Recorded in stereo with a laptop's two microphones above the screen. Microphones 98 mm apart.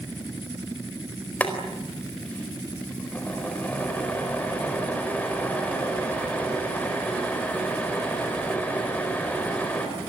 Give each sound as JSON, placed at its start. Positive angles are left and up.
{"t": 1.4, "sound": "boiling", "side_deg": 15, "distance_m": 4.5}